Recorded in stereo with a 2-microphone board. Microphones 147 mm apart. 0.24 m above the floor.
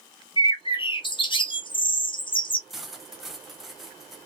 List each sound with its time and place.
0.4 s a bird: 35° left (ahead or behind), 0.6 m
2.7 s cutlery clinking: centre (ahead or behind), 0.7 m